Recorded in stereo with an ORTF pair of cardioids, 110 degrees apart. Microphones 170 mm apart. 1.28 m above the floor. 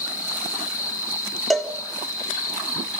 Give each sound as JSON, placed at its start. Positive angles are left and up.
{"t": 0.0, "sound": "an insect", "azimuth_deg": 20, "distance_m": 2.5}
{"t": 1.5, "sound": "a cowbell", "azimuth_deg": 0, "distance_m": 3.5}